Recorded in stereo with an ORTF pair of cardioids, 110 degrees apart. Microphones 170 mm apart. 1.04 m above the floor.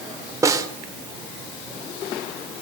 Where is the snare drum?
20° right, 3 m.